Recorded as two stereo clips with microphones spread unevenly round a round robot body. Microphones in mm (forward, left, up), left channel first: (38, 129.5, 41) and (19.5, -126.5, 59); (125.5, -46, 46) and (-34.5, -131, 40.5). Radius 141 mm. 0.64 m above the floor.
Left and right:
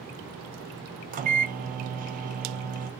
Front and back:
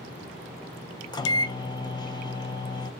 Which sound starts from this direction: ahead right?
A microwave, at 1.1 s.